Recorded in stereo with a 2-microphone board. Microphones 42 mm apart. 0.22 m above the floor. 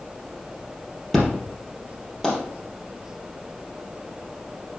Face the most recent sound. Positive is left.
turn(degrees=5)  # may be behind; listen again after turning